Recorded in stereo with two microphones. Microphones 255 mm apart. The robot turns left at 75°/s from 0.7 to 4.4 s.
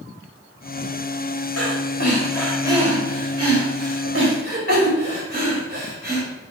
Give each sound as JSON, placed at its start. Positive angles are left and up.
{"t": 1.6, "sound": "breathing", "side_deg": 70, "distance_m": 2.5}